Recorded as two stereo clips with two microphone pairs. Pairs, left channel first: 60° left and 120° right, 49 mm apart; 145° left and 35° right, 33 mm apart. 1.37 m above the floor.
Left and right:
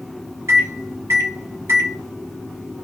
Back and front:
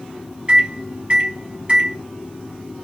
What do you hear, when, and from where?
0.5 s a microwave: 85° right, 2 m